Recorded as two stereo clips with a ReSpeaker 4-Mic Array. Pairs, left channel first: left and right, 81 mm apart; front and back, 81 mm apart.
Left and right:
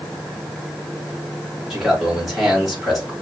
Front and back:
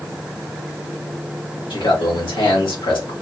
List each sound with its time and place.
1.7 s a man speaking: 5° right, 3 m